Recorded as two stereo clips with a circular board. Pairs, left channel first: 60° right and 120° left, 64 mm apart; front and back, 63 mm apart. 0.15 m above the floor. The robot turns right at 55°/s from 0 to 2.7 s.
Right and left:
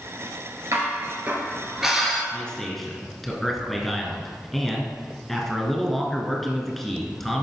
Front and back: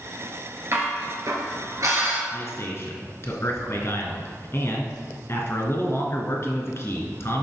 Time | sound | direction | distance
0.7 | dishes clattering | 140° left | 1.8 m
2.3 | a man speaking | 5° left | 1.6 m